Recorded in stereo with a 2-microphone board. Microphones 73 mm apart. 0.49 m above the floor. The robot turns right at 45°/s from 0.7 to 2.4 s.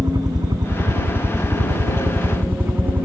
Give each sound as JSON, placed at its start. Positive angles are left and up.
{"t": 0.0, "sound": "a helicopter", "azimuth_deg": -105}